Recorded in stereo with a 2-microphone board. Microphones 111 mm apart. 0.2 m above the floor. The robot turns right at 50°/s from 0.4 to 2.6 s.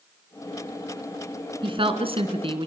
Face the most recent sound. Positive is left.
turn(degrees=-70)